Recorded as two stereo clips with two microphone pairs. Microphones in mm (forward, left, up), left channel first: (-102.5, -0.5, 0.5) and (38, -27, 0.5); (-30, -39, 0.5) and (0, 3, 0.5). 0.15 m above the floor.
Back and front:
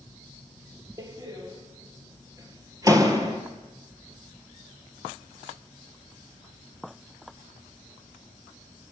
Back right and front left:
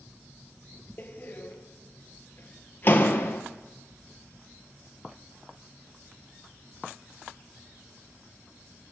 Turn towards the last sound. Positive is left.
turn(degrees=-75)